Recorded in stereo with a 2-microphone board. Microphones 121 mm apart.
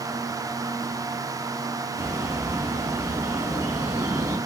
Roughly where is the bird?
Centre.